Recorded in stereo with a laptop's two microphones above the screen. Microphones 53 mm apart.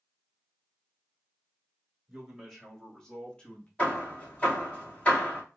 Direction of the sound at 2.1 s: 5° right (ahead or behind).